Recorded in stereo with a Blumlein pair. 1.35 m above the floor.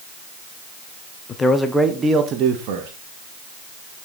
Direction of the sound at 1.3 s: 20° left.